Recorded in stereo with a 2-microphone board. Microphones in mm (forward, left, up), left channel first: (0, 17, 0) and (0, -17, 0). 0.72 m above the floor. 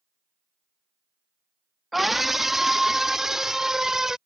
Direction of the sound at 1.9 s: 5° right (ahead or behind).